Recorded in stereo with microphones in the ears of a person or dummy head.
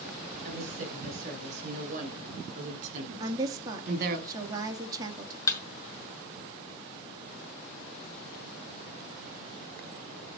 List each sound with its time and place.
0.4 s a woman speaking: 35° right (ahead or behind), 8 m; by 4.2 s 50° right (ahead or behind), 2.5 m
3.2 s a woman speaking: 20° right (ahead or behind), 2 m
5.5 s a thud: 20° left (ahead or behind), 2 m